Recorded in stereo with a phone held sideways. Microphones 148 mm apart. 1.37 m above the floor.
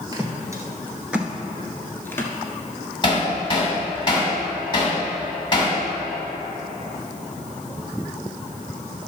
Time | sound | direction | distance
0.1 | footsteps | 25° right (ahead or behind) | 1.6 m
3.0 | hammering | 30° left (ahead or behind) | 2.5 m